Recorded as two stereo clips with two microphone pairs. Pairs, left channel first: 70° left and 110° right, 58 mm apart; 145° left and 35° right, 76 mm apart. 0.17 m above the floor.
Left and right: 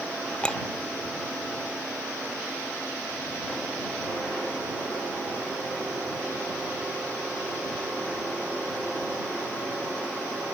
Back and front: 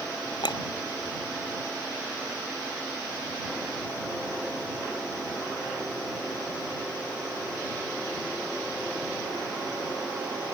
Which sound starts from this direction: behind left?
A clink, at 0.4 s.